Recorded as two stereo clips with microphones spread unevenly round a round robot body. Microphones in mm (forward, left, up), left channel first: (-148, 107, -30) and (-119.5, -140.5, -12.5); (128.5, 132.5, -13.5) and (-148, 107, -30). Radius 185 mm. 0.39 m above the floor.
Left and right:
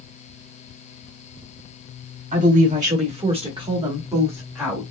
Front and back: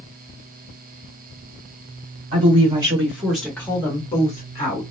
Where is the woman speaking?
120° right, 1.5 m; by 4.8 s 15° left, 1.4 m.